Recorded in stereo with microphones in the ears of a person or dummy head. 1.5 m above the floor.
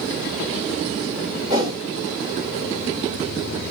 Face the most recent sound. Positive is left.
turn(degrees=-20)  # may be behind; listen again after turning